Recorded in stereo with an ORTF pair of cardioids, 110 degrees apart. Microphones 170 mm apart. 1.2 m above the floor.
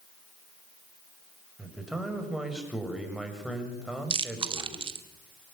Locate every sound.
1.6 s a man speaking: straight ahead, 6.5 m
4.1 s chewing: 30° right, 2 m